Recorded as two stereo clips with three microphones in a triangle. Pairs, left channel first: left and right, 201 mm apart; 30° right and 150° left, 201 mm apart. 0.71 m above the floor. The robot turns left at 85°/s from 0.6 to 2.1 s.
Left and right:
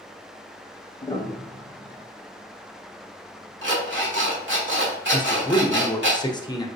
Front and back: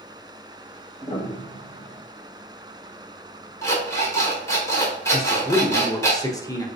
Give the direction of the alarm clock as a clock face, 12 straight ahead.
4 o'clock.